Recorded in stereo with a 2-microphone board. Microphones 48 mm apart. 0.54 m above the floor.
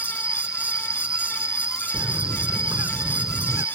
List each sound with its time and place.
0.0 s an insect: 25° right (ahead or behind)
1.9 s a bird: 75° right (ahead or behind)